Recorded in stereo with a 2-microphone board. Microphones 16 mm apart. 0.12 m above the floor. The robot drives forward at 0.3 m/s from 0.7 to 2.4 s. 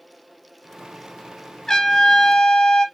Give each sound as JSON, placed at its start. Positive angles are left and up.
{"t": 1.7, "sound": "a trumpet", "side_deg": 40, "distance_m": 0.6}